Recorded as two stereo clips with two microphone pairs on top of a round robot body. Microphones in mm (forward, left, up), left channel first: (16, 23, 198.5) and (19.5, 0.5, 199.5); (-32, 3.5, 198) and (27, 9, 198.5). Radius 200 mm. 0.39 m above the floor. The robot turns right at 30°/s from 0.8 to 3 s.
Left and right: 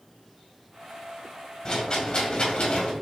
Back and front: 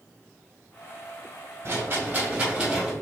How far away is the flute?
No flute in this recording.